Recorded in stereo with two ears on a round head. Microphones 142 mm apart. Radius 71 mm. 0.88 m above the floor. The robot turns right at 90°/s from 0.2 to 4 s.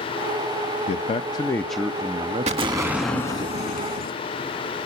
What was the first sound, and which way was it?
A man speaking, 100° left.